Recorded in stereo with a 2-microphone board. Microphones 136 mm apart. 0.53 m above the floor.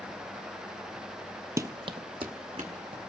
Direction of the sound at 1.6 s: 25° right (ahead or behind).